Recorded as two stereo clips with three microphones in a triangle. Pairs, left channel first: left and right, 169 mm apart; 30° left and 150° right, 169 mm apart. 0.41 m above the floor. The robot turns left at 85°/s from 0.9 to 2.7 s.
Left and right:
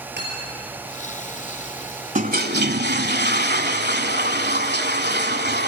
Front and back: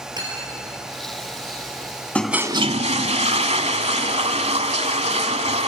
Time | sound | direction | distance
0.2 | cutlery clinking | 85° right | 5 m
2.1 | a toilet flushing | 50° right | 1.0 m